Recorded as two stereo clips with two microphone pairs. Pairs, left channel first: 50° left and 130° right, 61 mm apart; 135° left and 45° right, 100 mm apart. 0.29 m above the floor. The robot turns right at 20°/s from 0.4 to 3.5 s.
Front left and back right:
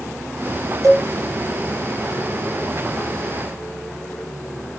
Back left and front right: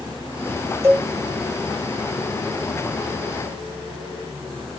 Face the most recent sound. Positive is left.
turn(degrees=-50)